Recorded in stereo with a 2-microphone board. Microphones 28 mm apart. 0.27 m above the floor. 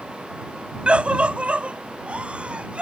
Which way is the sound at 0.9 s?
45° right (ahead or behind).